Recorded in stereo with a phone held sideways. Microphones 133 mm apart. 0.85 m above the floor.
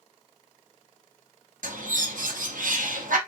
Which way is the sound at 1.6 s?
85° right.